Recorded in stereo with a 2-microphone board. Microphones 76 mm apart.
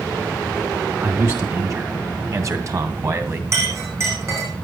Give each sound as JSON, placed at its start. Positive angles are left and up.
{"t": 1.0, "sound": "a man speaking", "side_deg": -40, "distance_m": 2.5}
{"t": 3.5, "sound": "a clink", "side_deg": -40, "distance_m": 8.5}